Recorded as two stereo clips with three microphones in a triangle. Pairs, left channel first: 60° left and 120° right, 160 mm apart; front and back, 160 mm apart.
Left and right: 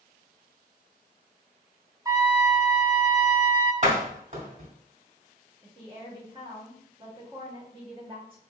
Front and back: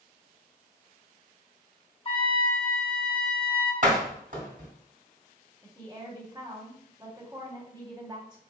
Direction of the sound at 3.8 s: 150° right.